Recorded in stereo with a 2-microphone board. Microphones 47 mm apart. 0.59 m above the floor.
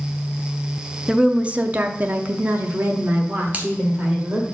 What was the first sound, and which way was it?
A woman speaking, 15° right (ahead or behind).